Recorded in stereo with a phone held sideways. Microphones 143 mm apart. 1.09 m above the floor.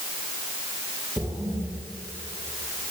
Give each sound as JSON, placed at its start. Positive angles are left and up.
{"t": 1.2, "sound": "a splash", "side_deg": -30, "distance_m": 3.5}